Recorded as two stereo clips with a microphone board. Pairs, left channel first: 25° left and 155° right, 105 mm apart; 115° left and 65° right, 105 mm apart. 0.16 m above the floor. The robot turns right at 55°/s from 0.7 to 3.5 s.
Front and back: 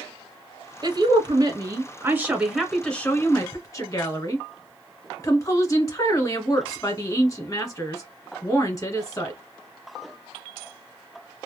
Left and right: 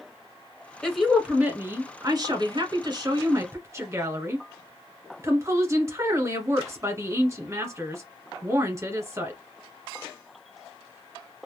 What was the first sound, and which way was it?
A woman speaking, 170° right.